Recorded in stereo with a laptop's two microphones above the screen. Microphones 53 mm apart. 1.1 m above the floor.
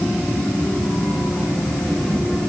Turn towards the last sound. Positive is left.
No sound to turn to.